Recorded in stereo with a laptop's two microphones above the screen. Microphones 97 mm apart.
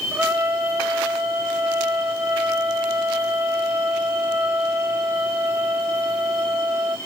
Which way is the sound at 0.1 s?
20° right (ahead or behind).